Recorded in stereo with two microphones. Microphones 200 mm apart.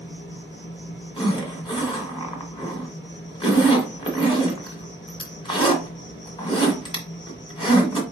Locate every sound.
0.0 s an insect: 70° left (ahead or behind), 3 m
1.2 s a zipper: 25° left (ahead or behind), 1.7 m